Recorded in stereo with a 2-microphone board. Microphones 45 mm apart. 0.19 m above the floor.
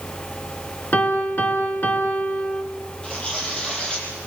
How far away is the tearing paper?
About 7.5 m.